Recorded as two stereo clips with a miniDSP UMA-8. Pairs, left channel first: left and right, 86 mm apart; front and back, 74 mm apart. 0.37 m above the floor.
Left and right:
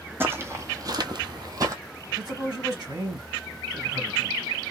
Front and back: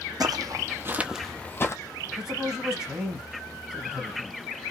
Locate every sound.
0.2 s footsteps: 155° right, 1.0 m; by 1.8 s 45° right, 0.7 m
2.1 s a man speaking: 100° right, 2 m